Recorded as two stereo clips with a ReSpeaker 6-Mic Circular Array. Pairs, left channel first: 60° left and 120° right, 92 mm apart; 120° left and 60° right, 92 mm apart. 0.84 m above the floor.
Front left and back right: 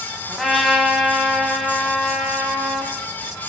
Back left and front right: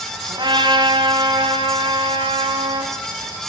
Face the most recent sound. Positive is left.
turn(degrees=-30)